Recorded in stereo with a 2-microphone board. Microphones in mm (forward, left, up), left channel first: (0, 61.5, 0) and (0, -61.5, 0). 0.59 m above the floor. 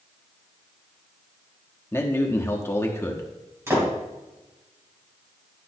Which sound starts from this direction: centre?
A man speaking, at 1.9 s.